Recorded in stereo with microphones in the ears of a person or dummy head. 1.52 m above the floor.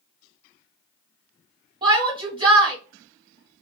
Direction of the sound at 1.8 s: 25° right (ahead or behind).